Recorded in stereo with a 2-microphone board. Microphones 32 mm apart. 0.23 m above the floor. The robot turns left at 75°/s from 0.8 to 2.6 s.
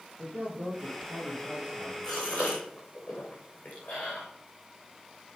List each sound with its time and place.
0.2 s a man speaking: 70° right, 5 m; by 1.9 s 155° right, 5 m
2.0 s a gasp: 20° left (ahead or behind), 4.5 m; by 4.2 s 60° left (ahead or behind), 4.5 m